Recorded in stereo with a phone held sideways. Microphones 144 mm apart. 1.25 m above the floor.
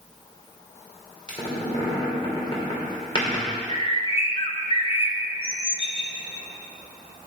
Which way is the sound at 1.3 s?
35° left (ahead or behind).